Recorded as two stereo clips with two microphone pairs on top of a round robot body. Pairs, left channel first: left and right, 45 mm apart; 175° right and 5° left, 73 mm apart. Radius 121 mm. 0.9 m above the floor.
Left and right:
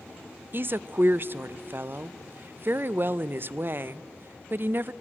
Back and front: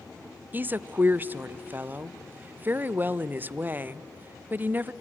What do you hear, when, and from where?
0.5 s a woman speaking: 55° right, 0.6 m